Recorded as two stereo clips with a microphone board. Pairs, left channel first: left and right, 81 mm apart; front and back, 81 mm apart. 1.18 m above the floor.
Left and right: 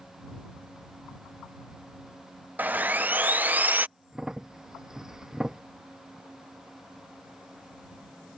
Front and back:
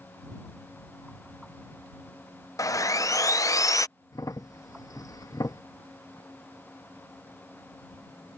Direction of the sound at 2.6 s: 25° right.